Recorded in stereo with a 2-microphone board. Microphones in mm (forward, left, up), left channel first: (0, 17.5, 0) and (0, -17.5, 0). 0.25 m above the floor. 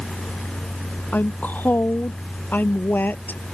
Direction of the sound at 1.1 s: 60° left (ahead or behind).